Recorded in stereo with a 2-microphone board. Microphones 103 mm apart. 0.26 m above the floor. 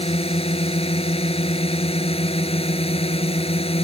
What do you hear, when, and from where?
0.0 s a drone: 70° left (ahead or behind)